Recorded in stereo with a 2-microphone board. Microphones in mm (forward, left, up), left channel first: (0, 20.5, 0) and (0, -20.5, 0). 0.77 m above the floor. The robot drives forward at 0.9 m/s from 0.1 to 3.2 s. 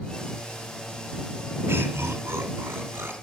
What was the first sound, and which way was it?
Laughter, 75° right (ahead or behind).